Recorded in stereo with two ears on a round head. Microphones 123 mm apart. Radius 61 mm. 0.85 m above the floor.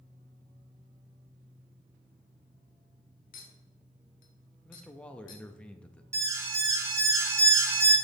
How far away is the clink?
About 1.4 m.